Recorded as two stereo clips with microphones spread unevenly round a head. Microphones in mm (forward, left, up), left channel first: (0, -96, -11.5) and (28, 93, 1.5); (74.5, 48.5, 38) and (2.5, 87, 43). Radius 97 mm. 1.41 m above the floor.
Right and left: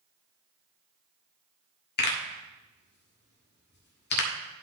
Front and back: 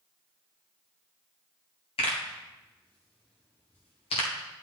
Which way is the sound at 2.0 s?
65° right.